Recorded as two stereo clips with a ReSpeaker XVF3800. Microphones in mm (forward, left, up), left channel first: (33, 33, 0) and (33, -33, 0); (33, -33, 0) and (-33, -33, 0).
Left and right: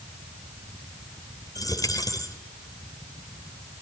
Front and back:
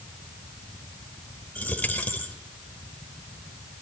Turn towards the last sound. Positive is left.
turn(degrees=70)